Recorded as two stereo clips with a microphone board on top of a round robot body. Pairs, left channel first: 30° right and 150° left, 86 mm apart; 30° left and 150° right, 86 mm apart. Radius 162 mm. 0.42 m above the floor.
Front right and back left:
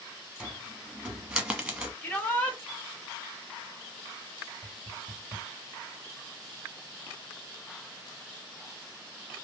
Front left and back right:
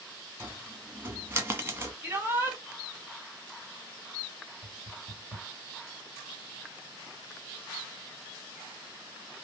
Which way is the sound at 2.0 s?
95° right.